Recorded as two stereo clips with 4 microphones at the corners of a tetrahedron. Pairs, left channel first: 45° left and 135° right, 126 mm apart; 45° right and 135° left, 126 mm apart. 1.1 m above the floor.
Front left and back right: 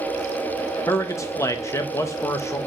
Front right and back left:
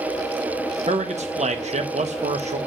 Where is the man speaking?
110° left, 0.9 m.